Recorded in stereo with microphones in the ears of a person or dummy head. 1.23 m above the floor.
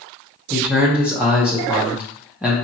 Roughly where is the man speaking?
Centre.